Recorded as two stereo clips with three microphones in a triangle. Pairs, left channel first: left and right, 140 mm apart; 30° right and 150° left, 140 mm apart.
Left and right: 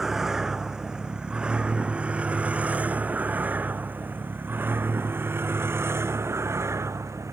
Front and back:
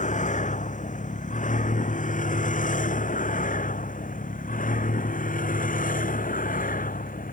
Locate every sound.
0.0 s a vehicle: 5° right; by 7.3 s 20° right